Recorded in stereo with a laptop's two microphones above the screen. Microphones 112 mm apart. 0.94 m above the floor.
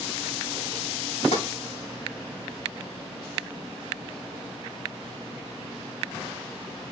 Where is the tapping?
75° left (ahead or behind), 3.5 m.